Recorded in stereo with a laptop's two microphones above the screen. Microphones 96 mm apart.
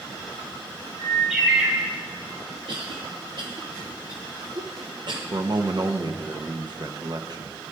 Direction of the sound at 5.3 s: 50° right (ahead or behind).